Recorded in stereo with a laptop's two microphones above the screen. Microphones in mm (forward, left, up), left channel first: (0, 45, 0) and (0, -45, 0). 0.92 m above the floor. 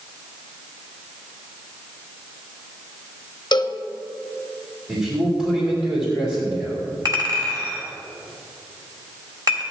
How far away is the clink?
About 2.5 m.